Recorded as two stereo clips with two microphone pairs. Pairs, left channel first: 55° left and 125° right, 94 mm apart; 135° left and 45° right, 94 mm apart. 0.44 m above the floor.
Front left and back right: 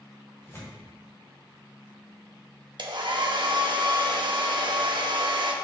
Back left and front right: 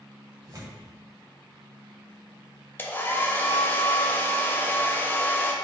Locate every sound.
0.4 s tearing paper: 5° right, 1.4 m
2.8 s a hair dryer: 155° right, 0.5 m